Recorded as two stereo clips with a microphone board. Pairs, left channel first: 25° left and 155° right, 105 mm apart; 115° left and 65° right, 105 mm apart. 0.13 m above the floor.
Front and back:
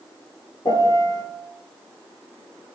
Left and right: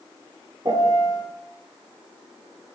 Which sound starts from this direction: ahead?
A piano, at 0.7 s.